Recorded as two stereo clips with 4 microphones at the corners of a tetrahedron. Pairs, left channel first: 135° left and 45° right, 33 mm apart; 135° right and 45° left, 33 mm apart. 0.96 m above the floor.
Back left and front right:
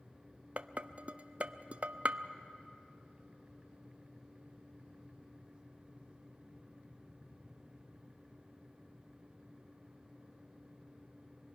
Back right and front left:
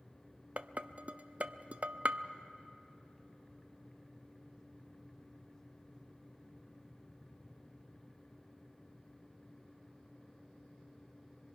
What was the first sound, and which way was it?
Dishes clattering, 5° left.